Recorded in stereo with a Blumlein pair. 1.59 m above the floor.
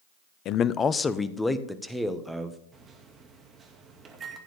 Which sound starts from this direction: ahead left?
A man speaking, at 0.5 s.